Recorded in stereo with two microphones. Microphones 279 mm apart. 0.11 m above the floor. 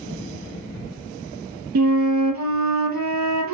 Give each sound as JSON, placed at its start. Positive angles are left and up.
{"t": 1.8, "sound": "a flute", "side_deg": -75, "distance_m": 0.5}